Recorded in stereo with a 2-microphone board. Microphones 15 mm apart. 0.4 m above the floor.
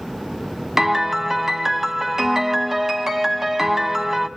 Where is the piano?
20° right (ahead or behind), 0.7 m.